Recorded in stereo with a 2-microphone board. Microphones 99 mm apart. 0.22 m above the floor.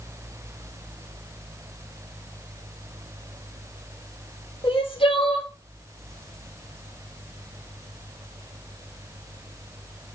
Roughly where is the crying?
Left.